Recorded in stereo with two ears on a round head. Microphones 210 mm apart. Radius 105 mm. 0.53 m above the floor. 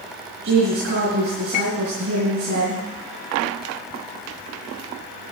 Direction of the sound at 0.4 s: 50° right (ahead or behind).